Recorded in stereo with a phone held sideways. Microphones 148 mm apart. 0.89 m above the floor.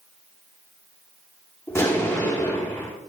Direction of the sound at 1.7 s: 20° left (ahead or behind).